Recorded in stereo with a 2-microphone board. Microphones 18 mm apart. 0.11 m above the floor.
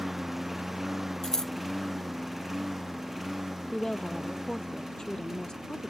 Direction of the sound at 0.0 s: 5° right (ahead or behind).